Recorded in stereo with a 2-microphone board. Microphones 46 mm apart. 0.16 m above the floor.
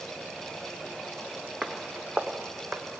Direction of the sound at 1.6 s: 20° right (ahead or behind).